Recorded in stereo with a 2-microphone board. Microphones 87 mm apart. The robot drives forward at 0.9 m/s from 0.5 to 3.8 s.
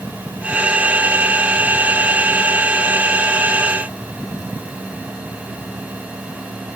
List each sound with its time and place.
Only background noise.